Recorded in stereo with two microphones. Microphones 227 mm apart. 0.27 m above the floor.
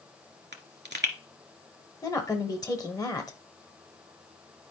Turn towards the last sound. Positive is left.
turn(degrees=15)  # may be behind; listen again after turning